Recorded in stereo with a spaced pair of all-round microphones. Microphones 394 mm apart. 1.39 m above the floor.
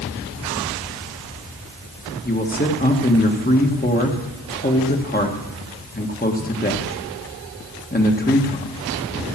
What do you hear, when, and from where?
2.2 s a man speaking: 25° left (ahead or behind), 1.5 m